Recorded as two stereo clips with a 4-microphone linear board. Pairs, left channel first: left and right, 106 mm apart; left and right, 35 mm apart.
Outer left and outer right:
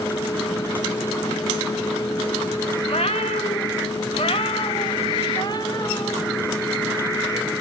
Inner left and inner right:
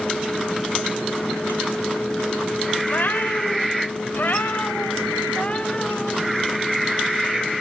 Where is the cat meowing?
60° left (ahead or behind), 1.8 m; by 6.2 s 35° left (ahead or behind), 4 m.